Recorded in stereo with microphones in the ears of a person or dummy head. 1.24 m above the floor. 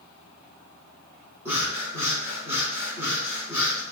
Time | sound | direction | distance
1.4 | breathing | 15° right (ahead or behind) | 4.5 m